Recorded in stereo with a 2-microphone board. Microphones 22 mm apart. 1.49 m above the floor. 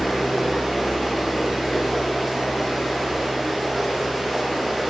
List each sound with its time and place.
0.0 s running water: 5° right (ahead or behind), 3.5 m